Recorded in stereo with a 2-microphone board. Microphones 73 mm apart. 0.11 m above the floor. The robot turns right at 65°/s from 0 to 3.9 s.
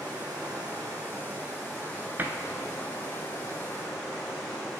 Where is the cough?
I don't hear a cough.